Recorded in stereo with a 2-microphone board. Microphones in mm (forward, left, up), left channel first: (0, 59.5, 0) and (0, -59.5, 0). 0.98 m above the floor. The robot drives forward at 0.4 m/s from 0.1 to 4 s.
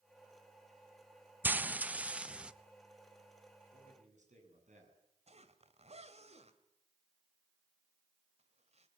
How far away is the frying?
About 0.5 m.